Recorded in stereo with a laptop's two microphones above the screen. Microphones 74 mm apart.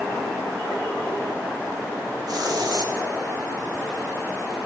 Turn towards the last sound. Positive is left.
turn(degrees=-60)  # may be behind; listen again after turning